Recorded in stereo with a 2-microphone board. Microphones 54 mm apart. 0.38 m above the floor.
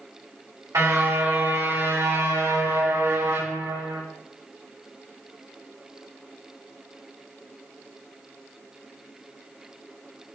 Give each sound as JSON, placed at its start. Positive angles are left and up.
{"t": 0.7, "sound": "a car horn", "side_deg": -70, "distance_m": 9.5}